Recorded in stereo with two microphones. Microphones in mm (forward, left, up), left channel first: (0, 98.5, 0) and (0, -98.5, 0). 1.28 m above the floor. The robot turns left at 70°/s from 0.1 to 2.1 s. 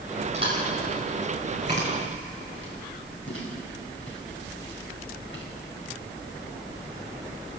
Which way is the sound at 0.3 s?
35° right (ahead or behind).